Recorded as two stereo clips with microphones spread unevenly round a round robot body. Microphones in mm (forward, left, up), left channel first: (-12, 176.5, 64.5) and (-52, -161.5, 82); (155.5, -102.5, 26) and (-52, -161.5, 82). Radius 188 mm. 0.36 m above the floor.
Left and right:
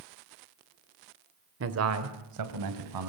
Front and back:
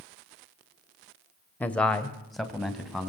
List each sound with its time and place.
1.6 s a man speaking: 50° right, 1.7 m; by 3.1 s 70° right, 3.5 m